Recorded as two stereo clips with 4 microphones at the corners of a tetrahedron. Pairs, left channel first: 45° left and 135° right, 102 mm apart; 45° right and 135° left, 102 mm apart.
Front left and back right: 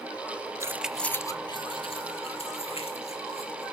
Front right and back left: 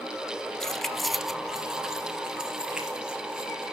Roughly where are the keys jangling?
Behind right.